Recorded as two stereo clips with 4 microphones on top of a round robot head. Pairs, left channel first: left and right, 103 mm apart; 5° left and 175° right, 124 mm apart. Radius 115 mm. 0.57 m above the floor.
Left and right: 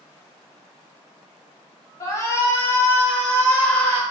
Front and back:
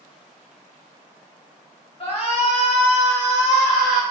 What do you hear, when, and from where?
2.0 s a shout: 35° left, 1.5 m; by 4.0 s 10° left, 2.5 m